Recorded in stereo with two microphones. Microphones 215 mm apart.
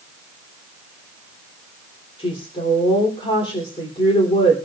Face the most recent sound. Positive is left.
turn(degrees=25)  # may be behind; listen again after turning